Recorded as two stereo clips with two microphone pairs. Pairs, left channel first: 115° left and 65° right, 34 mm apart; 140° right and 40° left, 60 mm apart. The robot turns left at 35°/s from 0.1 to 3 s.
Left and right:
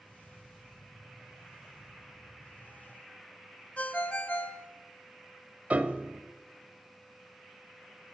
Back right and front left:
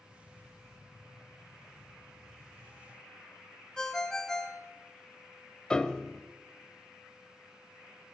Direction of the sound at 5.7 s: 70° right.